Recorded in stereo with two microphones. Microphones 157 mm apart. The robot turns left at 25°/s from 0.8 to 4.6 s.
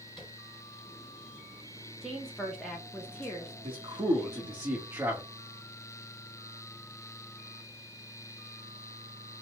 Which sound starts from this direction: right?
A man speaking, at 3.6 s.